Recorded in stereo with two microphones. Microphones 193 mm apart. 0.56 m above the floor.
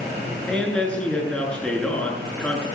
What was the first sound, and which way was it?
A man speaking, 5° left (ahead or behind).